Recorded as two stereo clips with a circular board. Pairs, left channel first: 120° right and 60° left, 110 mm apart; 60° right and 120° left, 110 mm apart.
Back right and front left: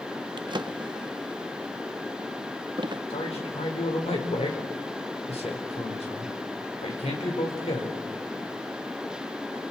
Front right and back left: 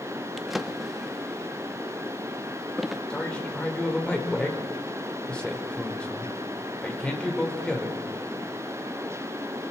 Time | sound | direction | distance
0.4 | a drawer | 30° left | 0.6 m
3.1 | a man speaking | 140° right | 4.5 m